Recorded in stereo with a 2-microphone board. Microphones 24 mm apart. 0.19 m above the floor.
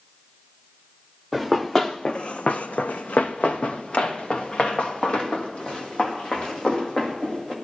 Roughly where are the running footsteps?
Centre.